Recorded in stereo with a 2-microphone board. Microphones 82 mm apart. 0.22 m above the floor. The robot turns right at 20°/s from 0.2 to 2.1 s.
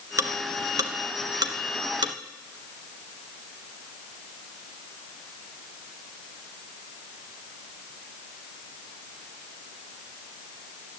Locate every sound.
0.2 s ticking: 40° right (ahead or behind), 1.1 m; by 2.1 s 65° right (ahead or behind), 1.1 m